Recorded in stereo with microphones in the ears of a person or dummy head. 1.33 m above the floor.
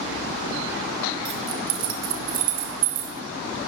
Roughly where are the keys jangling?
Right.